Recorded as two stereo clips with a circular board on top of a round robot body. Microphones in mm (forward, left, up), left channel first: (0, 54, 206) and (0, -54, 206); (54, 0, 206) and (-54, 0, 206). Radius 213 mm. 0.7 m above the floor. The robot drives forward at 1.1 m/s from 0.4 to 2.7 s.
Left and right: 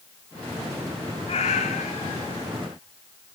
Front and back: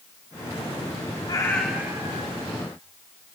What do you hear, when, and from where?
1.3 s a cat meowing: 55° left, 0.8 m; by 2.5 s 150° left, 1.1 m